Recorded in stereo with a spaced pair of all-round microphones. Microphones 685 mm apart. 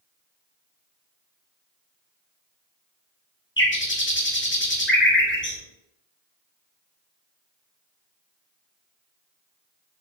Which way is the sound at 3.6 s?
20° left (ahead or behind).